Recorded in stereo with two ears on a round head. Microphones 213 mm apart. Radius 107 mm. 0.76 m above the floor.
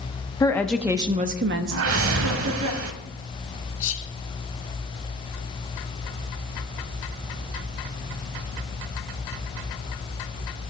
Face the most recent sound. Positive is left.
turn(degrees=55)  # may be behind; listen again after turning